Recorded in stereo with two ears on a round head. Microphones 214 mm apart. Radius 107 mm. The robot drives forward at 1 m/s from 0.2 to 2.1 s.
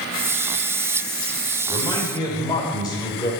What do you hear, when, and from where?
1.7 s a man speaking: 20° left (ahead or behind), 3 m